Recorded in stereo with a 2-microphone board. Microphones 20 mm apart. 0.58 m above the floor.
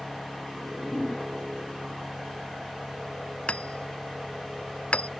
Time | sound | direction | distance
0.5 | a whoosh | centre (ahead or behind) | ?
3.5 | hammering | 85° left | ?